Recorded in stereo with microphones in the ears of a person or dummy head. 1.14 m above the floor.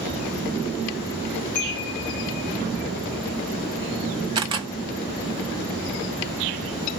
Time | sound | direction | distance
1.6 | a chime | 40° left (ahead or behind) | 1.2 m
4.3 | a camera shutter | 25° right (ahead or behind) | 0.6 m